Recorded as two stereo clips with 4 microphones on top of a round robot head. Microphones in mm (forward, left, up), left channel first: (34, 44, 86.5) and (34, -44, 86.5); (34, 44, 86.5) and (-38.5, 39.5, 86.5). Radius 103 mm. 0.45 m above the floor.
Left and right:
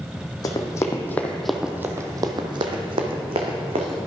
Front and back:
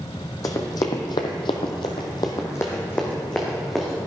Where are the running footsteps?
45° left, 1.2 m; by 4.0 s 85° right, 1.8 m.